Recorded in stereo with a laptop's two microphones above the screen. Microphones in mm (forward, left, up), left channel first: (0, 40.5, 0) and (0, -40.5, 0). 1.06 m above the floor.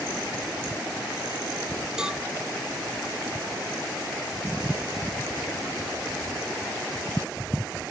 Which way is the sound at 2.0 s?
10° right (ahead or behind).